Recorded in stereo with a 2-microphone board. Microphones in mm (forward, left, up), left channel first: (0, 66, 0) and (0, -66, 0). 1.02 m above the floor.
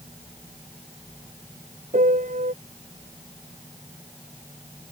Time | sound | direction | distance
1.9 | a piano | 75° right (ahead or behind) | ?